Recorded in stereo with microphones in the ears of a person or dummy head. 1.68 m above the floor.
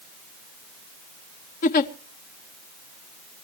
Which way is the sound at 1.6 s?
45° left (ahead or behind).